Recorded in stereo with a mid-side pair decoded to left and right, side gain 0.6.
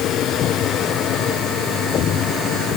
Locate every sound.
Only background noise.